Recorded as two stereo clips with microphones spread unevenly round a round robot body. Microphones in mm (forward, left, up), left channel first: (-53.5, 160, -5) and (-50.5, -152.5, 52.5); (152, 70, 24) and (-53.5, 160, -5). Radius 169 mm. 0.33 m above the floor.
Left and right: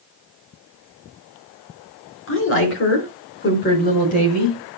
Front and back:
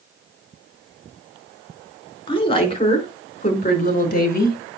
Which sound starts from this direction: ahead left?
A woman speaking, at 2.3 s.